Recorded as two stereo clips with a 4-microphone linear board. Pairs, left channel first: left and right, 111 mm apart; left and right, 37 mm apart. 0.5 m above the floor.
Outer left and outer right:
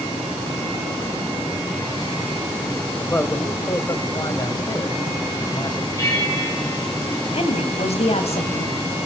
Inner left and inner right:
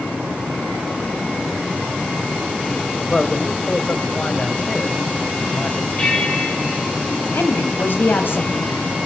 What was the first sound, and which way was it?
A man speaking, 20° left (ahead or behind).